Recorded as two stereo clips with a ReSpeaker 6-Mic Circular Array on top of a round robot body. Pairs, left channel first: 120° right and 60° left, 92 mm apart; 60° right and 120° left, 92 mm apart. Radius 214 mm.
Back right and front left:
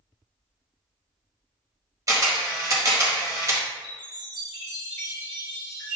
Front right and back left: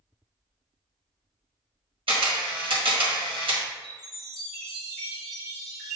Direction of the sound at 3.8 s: 155° right.